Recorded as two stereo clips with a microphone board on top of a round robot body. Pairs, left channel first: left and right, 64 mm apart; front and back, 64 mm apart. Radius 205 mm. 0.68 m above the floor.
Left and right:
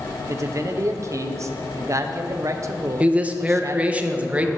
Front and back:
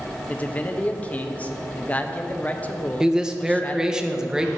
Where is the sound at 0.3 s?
65° right, 0.9 m.